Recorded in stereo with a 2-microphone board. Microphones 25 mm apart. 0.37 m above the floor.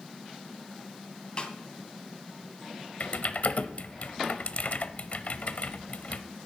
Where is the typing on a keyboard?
60° left (ahead or behind), 0.8 m.